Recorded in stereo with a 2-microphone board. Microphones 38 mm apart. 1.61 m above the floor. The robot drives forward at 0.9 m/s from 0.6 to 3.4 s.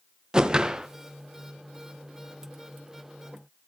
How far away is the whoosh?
About 1.1 m.